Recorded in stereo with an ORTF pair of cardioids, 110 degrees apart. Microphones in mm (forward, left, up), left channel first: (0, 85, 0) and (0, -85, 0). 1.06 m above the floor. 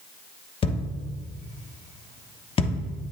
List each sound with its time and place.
0.6 s a thud: 30° left, 1.1 m